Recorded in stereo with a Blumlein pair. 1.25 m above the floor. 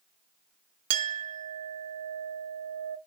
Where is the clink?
50° right, 0.5 m.